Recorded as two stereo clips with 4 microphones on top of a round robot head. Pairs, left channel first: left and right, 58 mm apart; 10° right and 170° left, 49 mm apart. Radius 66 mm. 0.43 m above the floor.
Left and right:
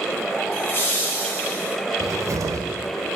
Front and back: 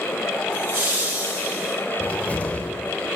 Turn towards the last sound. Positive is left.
turn(degrees=-70)